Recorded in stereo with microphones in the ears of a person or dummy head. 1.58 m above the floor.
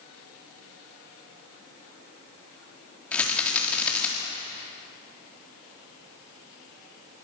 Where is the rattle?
15° left (ahead or behind), 4.5 m.